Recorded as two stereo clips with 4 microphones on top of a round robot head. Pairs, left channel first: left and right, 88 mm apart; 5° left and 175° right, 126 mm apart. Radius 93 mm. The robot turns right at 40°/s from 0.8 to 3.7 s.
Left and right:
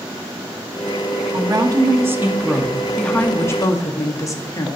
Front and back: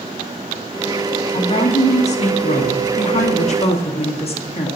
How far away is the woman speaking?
About 1.6 m.